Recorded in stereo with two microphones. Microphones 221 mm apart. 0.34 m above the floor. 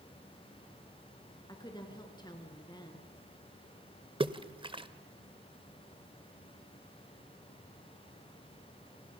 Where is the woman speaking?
20° left (ahead or behind), 3.5 m.